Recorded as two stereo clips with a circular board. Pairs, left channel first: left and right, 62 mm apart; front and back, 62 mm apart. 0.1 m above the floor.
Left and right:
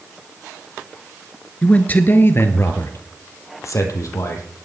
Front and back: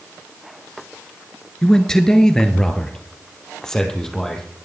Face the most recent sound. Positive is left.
turn(degrees=80)